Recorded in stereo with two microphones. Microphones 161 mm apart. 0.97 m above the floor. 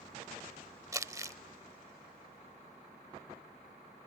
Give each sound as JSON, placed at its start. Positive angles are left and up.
{"t": 0.9, "sound": "crumpling", "side_deg": -20}